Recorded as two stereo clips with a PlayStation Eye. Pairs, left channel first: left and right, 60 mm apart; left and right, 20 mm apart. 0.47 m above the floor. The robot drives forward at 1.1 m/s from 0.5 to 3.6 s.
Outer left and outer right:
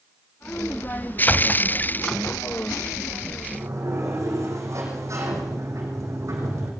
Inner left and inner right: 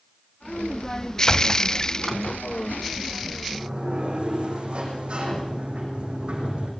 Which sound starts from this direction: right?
A sliding door, at 3.5 s.